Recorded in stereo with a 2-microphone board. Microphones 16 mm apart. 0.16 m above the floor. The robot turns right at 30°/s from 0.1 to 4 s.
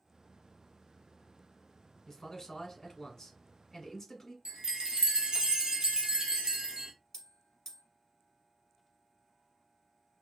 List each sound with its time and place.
2.1 s a man speaking: 70° left, 1.2 m; by 4.3 s 130° left, 1.2 m
4.5 s a chime: 55° right (ahead or behind), 0.7 m
7.1 s a bell: 25° left (ahead or behind), 1.2 m